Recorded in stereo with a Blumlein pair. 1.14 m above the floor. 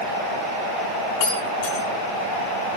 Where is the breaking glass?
45° left, 3.5 m.